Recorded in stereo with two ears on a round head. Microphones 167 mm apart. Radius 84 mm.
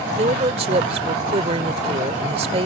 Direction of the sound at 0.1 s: 35° right (ahead or behind).